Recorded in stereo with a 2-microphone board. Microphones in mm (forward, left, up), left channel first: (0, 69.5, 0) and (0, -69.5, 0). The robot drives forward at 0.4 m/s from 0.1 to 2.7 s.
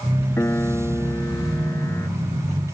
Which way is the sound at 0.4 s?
15° left (ahead or behind).